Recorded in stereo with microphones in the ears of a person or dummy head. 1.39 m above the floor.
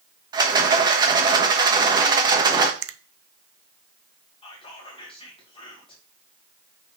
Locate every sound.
0.3 s a rattle: 25° right (ahead or behind), 1.2 m
2.8 s a finger snap: 75° right (ahead or behind), 0.7 m
4.4 s whispering: 30° left (ahead or behind), 1.9 m